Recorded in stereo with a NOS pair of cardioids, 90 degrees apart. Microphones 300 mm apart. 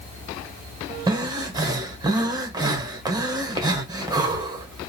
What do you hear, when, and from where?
1.1 s breathing: 15° right, 1.4 m